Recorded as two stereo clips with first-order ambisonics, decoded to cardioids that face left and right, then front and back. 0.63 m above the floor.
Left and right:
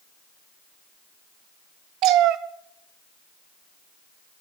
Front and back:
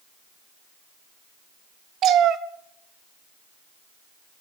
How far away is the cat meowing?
About 1.0 m.